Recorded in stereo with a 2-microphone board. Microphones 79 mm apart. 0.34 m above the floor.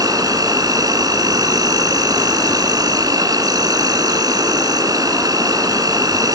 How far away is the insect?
About 2.5 m.